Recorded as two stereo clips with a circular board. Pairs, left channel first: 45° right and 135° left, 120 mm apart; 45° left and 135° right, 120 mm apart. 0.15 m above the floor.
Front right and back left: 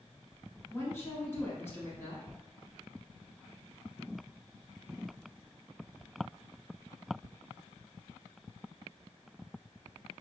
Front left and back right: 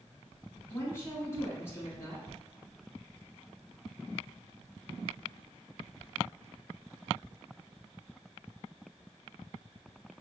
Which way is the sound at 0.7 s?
Straight ahead.